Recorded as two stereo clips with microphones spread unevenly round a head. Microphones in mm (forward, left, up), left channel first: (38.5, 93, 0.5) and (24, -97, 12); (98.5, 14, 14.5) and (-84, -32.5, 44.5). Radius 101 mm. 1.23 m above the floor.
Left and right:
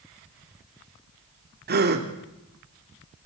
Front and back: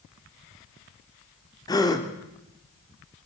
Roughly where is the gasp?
Ahead right.